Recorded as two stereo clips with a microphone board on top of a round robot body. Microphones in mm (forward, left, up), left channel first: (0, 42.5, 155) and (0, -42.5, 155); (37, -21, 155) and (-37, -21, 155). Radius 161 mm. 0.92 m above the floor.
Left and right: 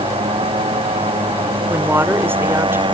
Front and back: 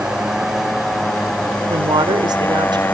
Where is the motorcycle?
100° right; by 2.9 s 65° right.